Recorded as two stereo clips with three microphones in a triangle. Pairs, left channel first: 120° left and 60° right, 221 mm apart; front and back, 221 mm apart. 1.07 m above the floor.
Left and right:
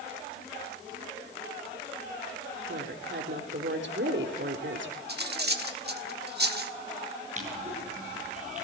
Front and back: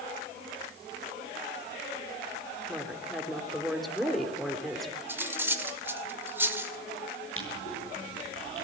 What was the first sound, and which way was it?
A woman speaking, 90° right.